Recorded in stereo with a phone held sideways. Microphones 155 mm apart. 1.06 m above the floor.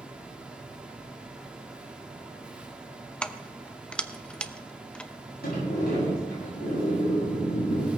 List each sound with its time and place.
0.0 s a fan: 5° right (ahead or behind), 1.5 m
3.2 s keys jangling: 5° left (ahead or behind), 0.6 m
5.4 s a sliding door: 85° left, 9 m